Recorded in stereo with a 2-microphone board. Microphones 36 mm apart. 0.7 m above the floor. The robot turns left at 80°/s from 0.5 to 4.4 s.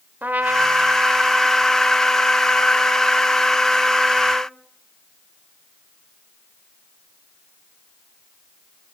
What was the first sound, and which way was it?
A trumpet, 90° right.